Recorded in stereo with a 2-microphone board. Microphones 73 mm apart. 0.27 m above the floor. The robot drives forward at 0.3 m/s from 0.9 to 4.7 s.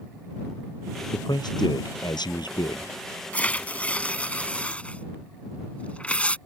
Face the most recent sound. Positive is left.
turn(degrees=15)  # may be behind; listen again after turning